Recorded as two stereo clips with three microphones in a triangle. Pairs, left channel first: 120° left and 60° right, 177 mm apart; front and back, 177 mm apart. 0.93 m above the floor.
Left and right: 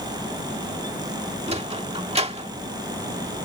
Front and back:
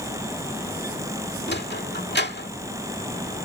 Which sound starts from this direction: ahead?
A sliding door, at 1.5 s.